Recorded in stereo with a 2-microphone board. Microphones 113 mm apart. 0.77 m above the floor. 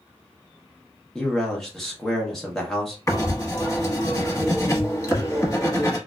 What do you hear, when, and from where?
1.1 s a man speaking: 5° left (ahead or behind), 0.9 m
3.1 s writing: 30° left (ahead or behind), 1.1 m